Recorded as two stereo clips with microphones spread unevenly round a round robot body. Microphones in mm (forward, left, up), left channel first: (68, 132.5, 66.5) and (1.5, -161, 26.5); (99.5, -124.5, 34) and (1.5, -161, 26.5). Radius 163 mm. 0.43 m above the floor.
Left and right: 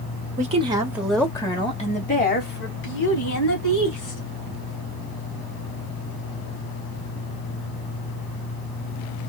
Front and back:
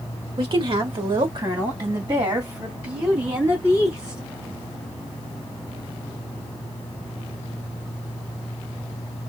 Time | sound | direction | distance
0.4 | a woman speaking | 155° right | 1.6 m